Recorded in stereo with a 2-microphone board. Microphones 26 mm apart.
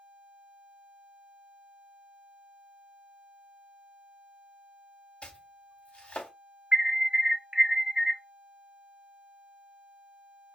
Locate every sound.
5.2 s chopping: 45° left (ahead or behind), 2.5 m
6.7 s an alarm: 30° right (ahead or behind), 0.8 m